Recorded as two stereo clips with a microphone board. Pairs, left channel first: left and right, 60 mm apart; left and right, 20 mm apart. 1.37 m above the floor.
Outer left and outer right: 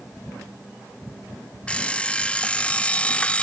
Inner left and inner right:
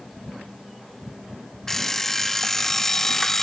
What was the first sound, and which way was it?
An alarm clock, 20° left (ahead or behind).